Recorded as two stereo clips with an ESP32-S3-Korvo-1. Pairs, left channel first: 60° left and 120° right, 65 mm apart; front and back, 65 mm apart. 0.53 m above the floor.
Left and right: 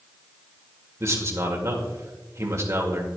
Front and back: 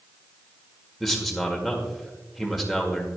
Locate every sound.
1.0 s a man speaking: 90° right, 1.8 m